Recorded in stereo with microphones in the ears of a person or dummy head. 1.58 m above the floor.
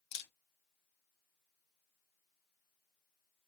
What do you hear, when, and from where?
0.1 s a camera shutter: 60° left (ahead or behind), 1.6 m